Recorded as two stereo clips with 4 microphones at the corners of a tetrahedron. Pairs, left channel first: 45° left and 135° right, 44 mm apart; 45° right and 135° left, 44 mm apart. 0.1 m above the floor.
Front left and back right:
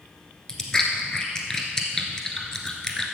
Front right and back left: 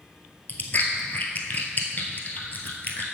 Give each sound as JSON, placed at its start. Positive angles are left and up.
{"t": 0.5, "sound": "chewing", "azimuth_deg": -25, "distance_m": 1.1}